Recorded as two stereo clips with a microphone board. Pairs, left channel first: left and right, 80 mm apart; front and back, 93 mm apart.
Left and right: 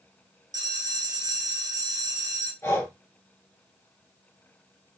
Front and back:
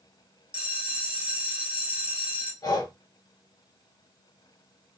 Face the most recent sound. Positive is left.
turn(degrees=35)